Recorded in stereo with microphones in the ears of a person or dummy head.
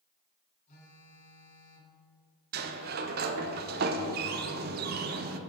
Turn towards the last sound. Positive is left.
turn(degrees=-45)  # may be behind; listen again after turning